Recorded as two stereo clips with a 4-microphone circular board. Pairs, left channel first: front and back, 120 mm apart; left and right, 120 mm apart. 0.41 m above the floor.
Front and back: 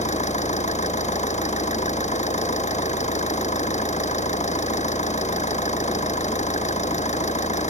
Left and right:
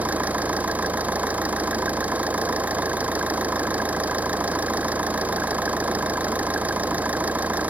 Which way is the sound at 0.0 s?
10° right.